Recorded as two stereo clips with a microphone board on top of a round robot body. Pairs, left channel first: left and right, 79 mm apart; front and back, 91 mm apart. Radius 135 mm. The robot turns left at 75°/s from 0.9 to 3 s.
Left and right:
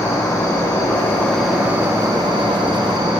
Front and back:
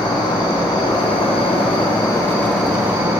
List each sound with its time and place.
0.0 s an insect: 40° left, 3.5 m; by 3.2 s 120° right, 3.5 m